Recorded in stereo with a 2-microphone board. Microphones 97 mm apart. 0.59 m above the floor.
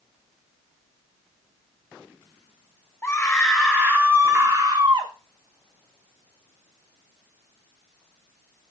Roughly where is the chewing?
I don't hear chewing.